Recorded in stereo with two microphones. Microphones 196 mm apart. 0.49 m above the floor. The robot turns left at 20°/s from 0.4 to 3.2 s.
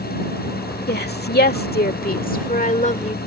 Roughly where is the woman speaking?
Left.